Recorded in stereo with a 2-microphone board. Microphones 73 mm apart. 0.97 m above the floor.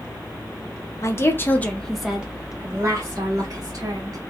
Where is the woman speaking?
40° left (ahead or behind), 0.9 m; by 4.2 s 55° right (ahead or behind), 1.6 m.